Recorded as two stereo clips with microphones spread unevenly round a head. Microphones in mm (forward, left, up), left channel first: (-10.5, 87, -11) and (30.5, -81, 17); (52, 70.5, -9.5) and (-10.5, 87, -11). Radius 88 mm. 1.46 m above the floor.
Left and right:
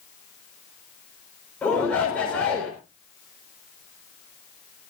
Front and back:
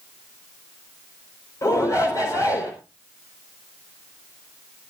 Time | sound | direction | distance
1.6 | a shout | 20° left | 5 m